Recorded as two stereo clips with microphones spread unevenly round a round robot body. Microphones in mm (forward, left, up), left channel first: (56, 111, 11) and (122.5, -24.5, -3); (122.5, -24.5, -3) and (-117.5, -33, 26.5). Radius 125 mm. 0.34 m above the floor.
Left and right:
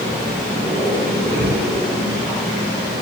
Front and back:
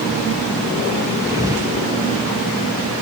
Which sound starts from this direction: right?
A thud, at 1.3 s.